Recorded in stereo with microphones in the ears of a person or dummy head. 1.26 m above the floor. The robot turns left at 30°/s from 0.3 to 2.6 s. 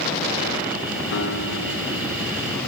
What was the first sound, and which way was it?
A guitar, 75° left.